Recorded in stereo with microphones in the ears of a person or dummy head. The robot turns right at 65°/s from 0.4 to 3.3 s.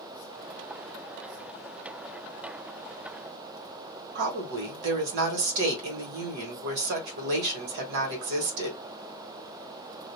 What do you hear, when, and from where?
4.2 s a woman speaking: 60° right (ahead or behind), 1.3 m